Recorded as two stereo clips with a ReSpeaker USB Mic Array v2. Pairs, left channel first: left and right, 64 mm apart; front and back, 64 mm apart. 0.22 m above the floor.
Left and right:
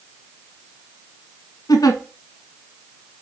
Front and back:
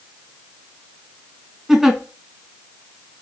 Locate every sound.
1.7 s a giggle: 95° left, 0.6 m